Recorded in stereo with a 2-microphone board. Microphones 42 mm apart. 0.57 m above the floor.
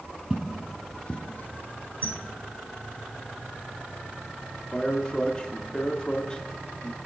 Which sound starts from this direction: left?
A squeak, at 2.0 s.